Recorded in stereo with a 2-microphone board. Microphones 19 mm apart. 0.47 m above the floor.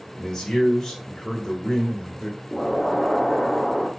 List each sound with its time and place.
0.2 s a man speaking: 45° left (ahead or behind), 1.9 m
2.5 s an explosion: 20° left (ahead or behind), 1.2 m